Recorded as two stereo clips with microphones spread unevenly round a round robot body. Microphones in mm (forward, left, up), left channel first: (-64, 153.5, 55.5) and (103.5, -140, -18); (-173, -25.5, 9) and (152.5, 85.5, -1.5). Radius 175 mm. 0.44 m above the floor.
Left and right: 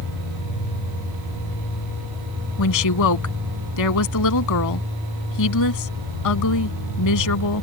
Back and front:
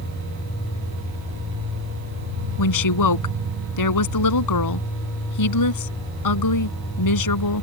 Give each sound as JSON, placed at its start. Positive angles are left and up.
{"t": 2.6, "sound": "a woman speaking", "azimuth_deg": 165}